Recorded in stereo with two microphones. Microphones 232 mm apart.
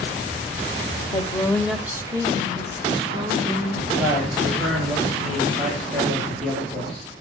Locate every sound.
1.1 s a woman speaking: 20° left (ahead or behind), 1.0 m; by 3.8 s 25° right (ahead or behind), 3.5 m
3.9 s a man speaking: centre (ahead or behind), 8.5 m